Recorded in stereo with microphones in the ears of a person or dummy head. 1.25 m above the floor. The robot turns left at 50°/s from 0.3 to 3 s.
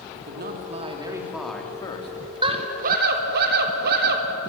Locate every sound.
0.1 s a man speaking: 125° right, 3 m; by 2.1 s 145° left, 3 m
2.4 s a scream: 30° right (ahead or behind), 4 m; by 4.3 s 55° right (ahead or behind), 4 m